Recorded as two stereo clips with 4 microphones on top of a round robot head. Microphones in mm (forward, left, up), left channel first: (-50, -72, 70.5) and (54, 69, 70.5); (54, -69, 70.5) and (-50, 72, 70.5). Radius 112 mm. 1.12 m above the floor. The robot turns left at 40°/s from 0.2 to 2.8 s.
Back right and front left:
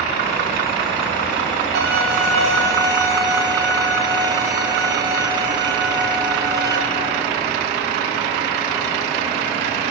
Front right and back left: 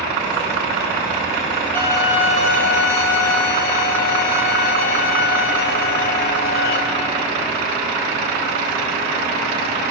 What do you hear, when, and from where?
1.8 s a violin: 25° left, 1.5 m; by 6.8 s 15° right, 1.5 m